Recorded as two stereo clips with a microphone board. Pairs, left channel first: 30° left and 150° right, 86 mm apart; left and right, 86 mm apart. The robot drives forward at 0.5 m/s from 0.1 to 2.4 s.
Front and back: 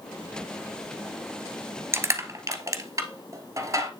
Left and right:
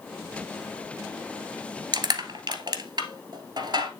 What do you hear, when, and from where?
1.9 s crushing: 100° right, 1.3 m; by 3.9 s 110° right, 1.4 m